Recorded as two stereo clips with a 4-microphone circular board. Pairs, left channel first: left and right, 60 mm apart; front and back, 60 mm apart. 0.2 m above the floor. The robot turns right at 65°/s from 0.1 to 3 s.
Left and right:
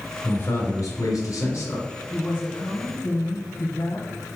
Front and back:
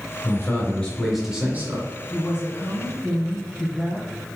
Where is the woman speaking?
35° left, 1.7 m; by 4.2 s 90° left, 1.7 m.